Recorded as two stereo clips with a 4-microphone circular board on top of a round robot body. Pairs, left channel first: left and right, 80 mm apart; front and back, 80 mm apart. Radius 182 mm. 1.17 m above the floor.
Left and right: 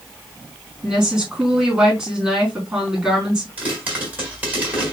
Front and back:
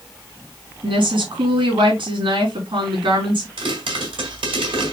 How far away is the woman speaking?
About 4.5 m.